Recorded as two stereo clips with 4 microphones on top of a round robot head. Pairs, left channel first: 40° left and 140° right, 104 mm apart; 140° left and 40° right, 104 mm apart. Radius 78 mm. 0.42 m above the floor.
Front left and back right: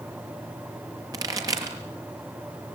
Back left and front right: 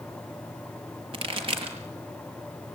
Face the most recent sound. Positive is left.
turn(degrees=-80)